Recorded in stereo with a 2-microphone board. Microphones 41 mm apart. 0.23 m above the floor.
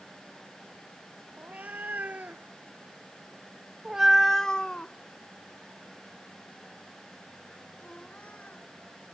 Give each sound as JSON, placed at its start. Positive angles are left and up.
{"t": 1.4, "sound": "a cat meowing", "side_deg": -45}